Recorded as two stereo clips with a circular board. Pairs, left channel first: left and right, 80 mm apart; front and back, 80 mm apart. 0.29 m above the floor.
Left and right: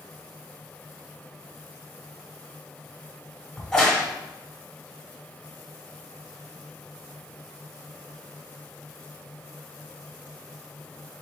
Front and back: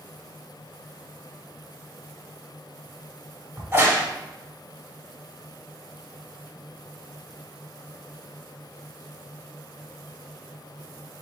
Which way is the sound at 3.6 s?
165° left.